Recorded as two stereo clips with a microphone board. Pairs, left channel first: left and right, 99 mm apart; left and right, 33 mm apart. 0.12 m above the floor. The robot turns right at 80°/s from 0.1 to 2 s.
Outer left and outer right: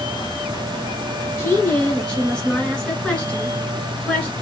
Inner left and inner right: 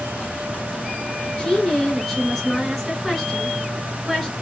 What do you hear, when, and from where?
1.4 s a woman speaking: 115° left, 1.6 m; by 4.3 s 160° left, 1.6 m